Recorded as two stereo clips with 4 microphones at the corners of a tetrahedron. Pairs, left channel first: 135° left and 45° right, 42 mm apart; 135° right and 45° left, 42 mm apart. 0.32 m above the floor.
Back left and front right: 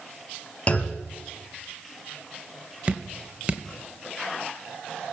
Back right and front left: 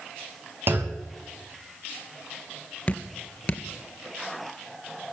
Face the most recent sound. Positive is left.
turn(degrees=-90)